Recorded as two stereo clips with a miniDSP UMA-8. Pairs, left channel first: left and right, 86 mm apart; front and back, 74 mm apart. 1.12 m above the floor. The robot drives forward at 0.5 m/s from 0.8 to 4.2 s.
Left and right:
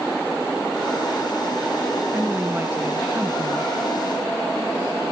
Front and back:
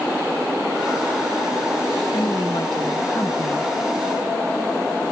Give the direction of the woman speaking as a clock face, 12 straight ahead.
1 o'clock.